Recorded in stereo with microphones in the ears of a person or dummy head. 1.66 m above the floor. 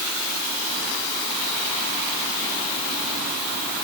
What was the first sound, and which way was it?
Only background noise.